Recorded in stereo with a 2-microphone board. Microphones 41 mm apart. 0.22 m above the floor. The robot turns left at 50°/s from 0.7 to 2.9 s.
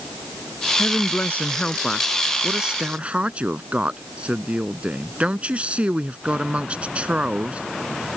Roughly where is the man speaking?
Left.